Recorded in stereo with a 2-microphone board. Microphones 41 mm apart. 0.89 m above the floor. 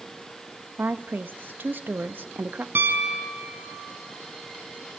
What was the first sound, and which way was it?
A woman speaking, 55° right (ahead or behind).